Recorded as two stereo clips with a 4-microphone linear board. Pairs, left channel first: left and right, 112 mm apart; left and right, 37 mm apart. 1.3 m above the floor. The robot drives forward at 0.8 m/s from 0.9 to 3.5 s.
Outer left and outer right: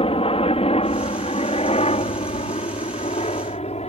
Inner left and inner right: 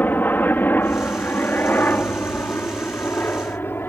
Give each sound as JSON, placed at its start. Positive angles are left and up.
{"t": 0.0, "sound": "a helicopter", "side_deg": 55}